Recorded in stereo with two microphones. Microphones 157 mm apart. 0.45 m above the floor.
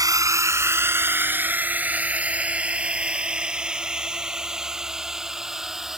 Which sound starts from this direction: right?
A drone, at 0.0 s.